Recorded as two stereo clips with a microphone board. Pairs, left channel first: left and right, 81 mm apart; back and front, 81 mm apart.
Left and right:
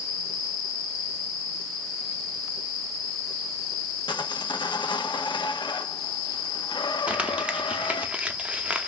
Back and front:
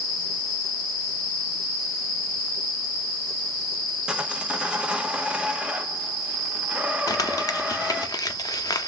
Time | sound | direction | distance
4.1 | sawing | 75° left | 0.6 m
7.1 | crumpling | 160° right | 0.6 m